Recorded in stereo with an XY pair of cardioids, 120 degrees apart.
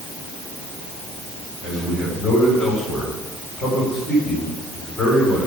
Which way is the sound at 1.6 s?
30° left.